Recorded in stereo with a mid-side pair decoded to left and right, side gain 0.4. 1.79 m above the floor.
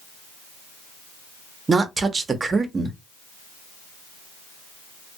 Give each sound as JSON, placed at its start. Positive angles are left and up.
{"t": 1.7, "sound": "a woman speaking", "azimuth_deg": -40, "distance_m": 0.8}